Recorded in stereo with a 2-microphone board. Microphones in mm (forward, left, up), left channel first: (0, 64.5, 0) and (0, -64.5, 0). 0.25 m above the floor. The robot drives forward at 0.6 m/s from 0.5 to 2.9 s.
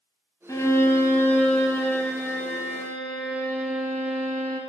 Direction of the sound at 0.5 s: 25° left (ahead or behind).